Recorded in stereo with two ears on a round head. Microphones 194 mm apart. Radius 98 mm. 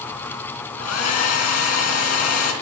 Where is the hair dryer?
75° left (ahead or behind), 3.5 m.